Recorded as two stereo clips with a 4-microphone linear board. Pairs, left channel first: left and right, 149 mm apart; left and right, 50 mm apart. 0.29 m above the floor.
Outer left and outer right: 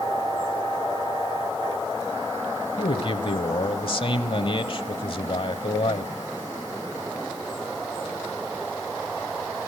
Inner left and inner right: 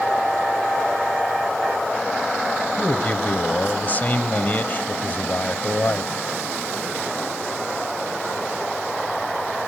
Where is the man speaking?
35° left (ahead or behind), 1.1 m.